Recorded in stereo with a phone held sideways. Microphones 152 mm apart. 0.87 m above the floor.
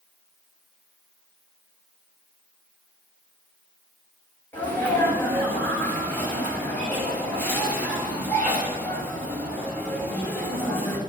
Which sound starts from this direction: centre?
A sneeze, at 4.5 s.